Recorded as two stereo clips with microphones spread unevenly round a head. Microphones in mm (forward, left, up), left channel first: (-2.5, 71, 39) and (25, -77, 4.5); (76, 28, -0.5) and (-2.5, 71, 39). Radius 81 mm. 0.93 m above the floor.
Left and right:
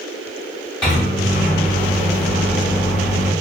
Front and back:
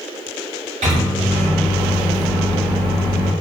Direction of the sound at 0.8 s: 175° right.